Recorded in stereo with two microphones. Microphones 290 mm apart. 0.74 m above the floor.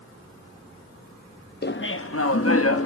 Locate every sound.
1.6 s laughter: 35° left (ahead or behind), 0.5 m; by 2.9 s 50° left (ahead or behind), 0.9 m